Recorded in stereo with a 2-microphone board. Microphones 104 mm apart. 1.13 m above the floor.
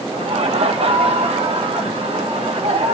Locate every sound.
0.1 s laughter: 75° right (ahead or behind), 1.2 m